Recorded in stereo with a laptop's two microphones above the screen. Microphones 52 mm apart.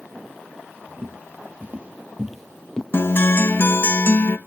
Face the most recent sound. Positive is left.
turn(degrees=45)  # may be behind; listen again after turning